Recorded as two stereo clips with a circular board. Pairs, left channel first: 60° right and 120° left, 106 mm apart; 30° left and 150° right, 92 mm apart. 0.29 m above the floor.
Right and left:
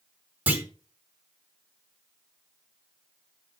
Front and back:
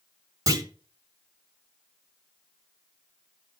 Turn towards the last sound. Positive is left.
turn(degrees=-170)